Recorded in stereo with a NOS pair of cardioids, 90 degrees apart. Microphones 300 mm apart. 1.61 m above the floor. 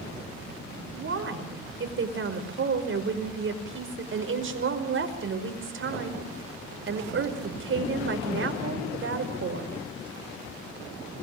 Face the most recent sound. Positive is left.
turn(degrees=-45)